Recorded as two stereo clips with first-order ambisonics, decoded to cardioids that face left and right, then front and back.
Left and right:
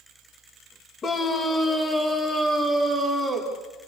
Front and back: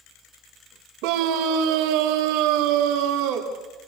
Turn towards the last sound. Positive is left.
turn(degrees=-175)